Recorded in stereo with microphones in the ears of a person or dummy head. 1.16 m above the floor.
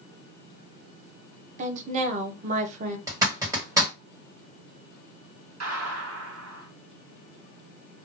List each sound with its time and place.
1.6 s a woman speaking: 40° right (ahead or behind), 0.7 m
3.1 s a zipper: 15° right (ahead or behind), 1.3 m
5.6 s a gunshot: 75° right (ahead or behind), 1.2 m